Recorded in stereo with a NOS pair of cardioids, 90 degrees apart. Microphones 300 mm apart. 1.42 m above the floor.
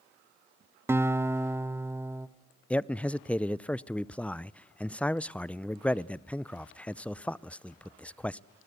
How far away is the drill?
I don't hear a drill.